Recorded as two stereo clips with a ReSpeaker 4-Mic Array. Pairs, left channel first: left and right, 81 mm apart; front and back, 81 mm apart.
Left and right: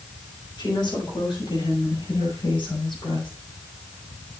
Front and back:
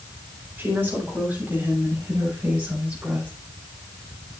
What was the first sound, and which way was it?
A woman speaking, 115° left.